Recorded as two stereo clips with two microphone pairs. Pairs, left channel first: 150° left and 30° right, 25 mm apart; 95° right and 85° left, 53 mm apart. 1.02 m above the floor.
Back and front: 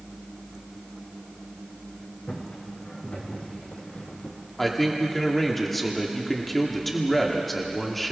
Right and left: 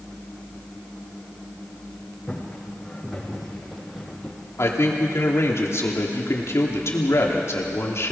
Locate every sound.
2.3 s footsteps: straight behind, 4 m; by 4.4 s 175° left, 2.5 m
4.6 s a man speaking: 125° right, 2.5 m